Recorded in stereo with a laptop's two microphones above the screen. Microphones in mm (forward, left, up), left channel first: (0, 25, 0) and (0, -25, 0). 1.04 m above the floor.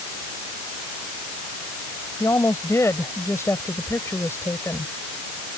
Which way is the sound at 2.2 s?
85° left.